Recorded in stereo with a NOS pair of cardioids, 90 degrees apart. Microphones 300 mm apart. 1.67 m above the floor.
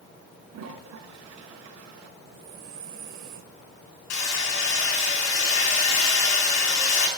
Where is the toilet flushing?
65° right, 5 m.